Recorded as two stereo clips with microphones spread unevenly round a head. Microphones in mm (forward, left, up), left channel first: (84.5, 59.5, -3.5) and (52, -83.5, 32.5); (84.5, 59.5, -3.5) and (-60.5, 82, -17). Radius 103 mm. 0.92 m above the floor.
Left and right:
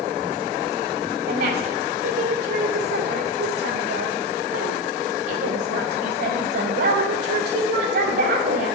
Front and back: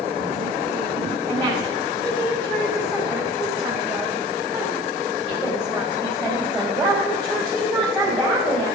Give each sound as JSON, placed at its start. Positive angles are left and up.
{"t": 1.3, "sound": "a woman speaking", "azimuth_deg": -90, "distance_m": 3.0}